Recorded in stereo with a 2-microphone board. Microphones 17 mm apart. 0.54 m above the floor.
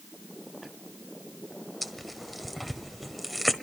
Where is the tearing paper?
5° left (ahead or behind), 1.2 m.